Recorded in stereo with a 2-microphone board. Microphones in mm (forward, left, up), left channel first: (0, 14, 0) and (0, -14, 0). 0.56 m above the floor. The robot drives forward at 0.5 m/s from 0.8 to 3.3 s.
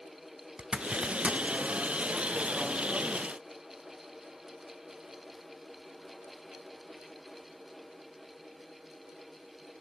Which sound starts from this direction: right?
A zipper, at 0.6 s.